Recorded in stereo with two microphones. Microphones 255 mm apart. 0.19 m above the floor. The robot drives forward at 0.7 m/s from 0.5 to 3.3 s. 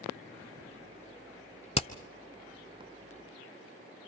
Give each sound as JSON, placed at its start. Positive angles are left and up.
{"t": 1.8, "sound": "hammering", "side_deg": 25, "distance_m": 1.1}